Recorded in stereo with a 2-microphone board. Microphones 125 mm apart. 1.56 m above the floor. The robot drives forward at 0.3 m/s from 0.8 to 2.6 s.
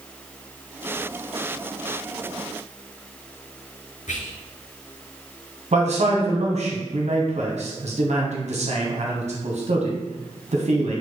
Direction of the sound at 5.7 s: 65° right (ahead or behind).